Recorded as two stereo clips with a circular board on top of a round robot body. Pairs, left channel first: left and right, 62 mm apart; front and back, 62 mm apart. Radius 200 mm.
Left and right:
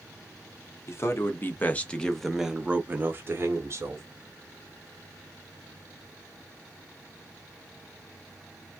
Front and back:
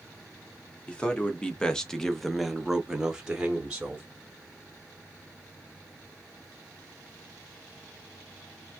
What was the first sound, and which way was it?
A man speaking, 70° left.